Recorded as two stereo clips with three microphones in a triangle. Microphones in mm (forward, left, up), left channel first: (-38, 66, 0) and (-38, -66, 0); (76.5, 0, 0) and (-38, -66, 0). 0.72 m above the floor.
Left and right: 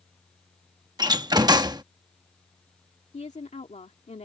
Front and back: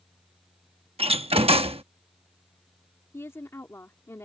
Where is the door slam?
135° right.